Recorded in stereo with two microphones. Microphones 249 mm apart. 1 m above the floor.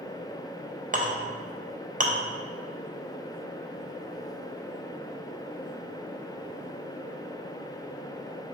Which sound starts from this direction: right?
A clink, at 0.9 s.